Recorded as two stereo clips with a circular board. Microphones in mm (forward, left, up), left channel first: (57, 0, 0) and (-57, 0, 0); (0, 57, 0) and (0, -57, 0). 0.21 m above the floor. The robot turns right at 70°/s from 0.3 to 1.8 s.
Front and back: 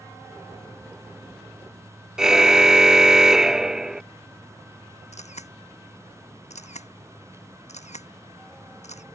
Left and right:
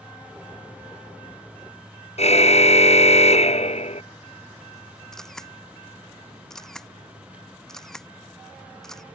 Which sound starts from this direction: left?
A car horn, at 2.2 s.